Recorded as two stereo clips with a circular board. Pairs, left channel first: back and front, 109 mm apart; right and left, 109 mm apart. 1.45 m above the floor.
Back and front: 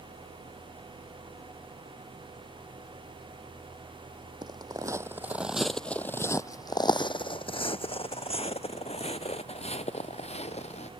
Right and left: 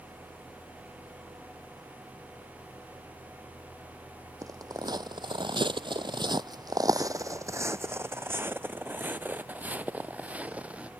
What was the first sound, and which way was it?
Footsteps, 40° left.